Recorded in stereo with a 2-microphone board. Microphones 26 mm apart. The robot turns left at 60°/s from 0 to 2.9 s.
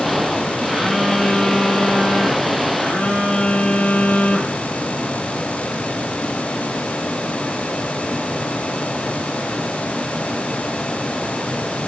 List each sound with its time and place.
0.7 s a phone buzzing: 170° right, 2.5 m; by 4.6 s 55° left, 2.5 m